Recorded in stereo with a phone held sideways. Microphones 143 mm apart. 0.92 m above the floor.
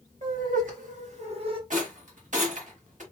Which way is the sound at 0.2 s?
70° right (ahead or behind).